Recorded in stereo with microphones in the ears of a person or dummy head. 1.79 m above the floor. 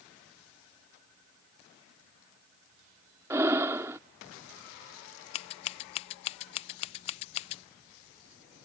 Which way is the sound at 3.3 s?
15° right (ahead or behind).